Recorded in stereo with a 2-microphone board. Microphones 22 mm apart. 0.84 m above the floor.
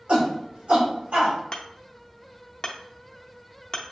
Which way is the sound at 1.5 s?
35° left (ahead or behind).